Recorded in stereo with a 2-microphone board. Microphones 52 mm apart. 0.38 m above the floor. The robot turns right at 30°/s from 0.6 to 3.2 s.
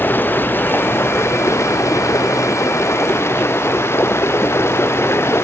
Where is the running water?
45° left; by 5.5 s 120° left.